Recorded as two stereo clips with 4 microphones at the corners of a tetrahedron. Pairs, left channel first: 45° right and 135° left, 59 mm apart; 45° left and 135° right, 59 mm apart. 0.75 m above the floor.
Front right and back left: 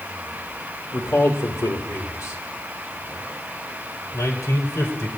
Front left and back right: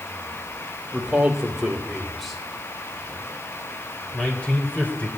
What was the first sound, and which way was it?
A man speaking, 60° right.